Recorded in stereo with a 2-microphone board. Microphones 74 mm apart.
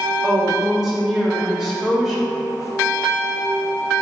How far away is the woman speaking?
About 0.9 m.